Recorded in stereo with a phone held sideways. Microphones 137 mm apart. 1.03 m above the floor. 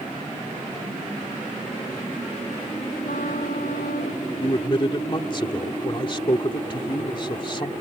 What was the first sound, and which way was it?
A trumpet, 85° left.